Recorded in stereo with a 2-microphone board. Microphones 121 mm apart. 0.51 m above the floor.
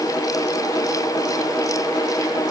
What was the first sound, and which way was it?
Only background noise.